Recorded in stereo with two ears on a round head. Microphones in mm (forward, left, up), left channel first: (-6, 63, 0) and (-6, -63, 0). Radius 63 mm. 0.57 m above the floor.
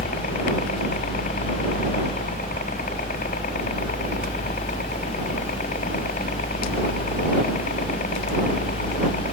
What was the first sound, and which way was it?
A helicopter, 55° left (ahead or behind).